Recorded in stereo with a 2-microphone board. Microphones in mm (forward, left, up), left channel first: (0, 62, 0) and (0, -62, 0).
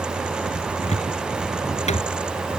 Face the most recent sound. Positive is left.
turn(degrees=70)  # may be behind; listen again after turning